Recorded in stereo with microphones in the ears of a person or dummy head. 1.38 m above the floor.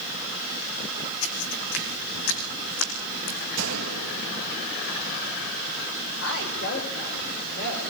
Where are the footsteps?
70° left (ahead or behind), 4 m.